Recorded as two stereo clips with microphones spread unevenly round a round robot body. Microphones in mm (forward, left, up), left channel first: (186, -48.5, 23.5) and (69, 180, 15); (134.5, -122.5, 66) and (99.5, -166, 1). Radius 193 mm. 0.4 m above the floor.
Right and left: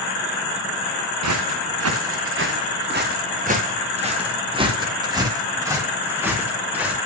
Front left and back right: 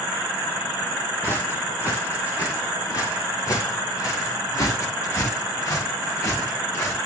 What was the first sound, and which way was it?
Footsteps, 105° left.